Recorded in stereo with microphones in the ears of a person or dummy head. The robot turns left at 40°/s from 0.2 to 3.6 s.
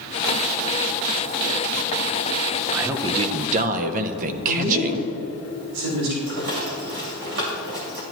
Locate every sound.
2.7 s a man speaking: 10° right, 0.7 m; by 5.1 s 45° right, 0.7 m
4.5 s a woman speaking: 90° right, 4 m
6.3 s a rattle: 55° right (ahead or behind), 1.9 m